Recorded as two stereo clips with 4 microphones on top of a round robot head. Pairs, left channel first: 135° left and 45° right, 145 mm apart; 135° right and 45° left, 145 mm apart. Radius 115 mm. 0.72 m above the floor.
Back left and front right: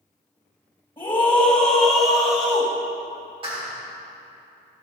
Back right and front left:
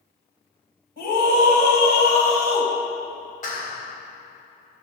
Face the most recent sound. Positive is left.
turn(degrees=-100)